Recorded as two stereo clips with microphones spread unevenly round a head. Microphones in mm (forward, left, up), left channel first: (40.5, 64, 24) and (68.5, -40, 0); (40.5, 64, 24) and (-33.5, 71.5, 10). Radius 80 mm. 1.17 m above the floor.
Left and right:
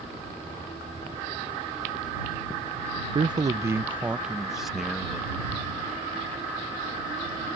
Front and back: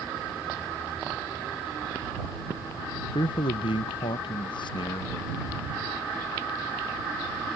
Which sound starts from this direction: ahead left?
A thud, at 5.5 s.